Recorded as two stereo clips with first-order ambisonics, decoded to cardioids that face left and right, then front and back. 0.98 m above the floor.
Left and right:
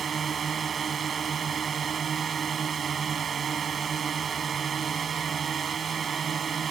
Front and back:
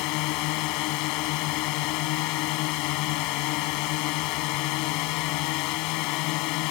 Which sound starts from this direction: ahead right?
A drone, at 0.0 s.